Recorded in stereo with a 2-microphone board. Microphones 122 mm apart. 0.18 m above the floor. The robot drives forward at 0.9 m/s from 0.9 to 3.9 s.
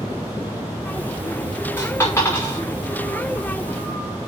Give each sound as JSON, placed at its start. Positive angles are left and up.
{"t": 1.8, "sound": "a dropped coin", "side_deg": 25, "distance_m": 6.0}